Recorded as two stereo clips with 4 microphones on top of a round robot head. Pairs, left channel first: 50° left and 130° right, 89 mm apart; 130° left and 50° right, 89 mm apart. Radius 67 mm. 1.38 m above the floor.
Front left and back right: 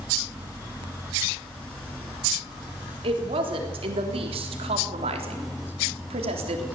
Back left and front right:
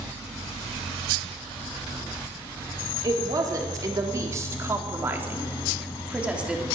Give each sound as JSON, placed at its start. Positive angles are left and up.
{"t": 3.0, "sound": "a woman speaking", "azimuth_deg": -100, "distance_m": 4.5}